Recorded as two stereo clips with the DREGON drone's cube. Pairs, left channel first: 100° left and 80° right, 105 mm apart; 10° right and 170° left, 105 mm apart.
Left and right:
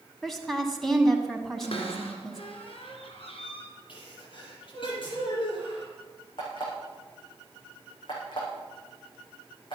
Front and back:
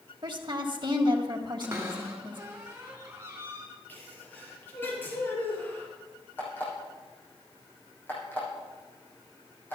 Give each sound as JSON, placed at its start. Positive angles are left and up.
{"t": 0.2, "sound": "a woman speaking", "azimuth_deg": -170, "distance_m": 1.8}
{"t": 1.6, "sound": "a cupboard door", "azimuth_deg": 110, "distance_m": 3.0}
{"t": 3.9, "sound": "a sneeze", "azimuth_deg": 60, "distance_m": 7.0}
{"t": 6.4, "sound": "an alarm clock", "azimuth_deg": 60, "distance_m": 8.0}